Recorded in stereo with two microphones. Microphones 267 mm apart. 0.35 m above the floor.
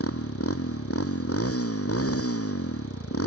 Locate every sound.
0.0 s a motorcycle: 55° left (ahead or behind)